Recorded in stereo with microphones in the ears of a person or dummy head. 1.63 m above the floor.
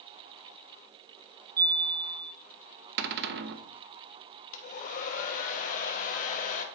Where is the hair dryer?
50° left (ahead or behind), 1.1 m.